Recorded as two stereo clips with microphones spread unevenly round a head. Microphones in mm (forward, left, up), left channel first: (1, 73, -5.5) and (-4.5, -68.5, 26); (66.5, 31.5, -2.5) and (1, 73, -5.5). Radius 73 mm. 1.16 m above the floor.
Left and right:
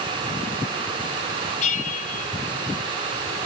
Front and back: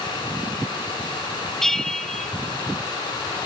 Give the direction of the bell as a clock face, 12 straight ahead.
10 o'clock.